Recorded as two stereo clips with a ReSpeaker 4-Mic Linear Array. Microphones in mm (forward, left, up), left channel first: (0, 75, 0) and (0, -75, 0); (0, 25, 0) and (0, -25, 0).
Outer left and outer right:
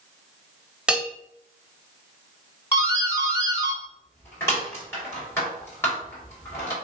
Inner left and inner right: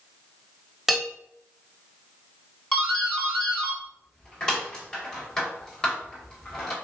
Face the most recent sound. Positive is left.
turn(degrees=15)  # may be behind; listen again after turning